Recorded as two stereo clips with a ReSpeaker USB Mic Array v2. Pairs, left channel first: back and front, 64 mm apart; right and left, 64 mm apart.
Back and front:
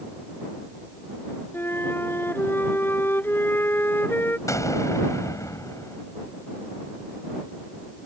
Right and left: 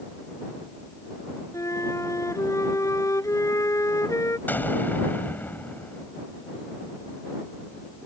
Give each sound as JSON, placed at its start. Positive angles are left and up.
{"t": 1.5, "sound": "a flute", "azimuth_deg": -125}
{"t": 4.5, "sound": "an explosion", "azimuth_deg": -150}